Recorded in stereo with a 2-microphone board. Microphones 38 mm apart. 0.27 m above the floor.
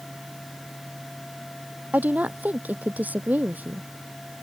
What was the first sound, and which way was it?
A woman speaking, 50° right (ahead or behind).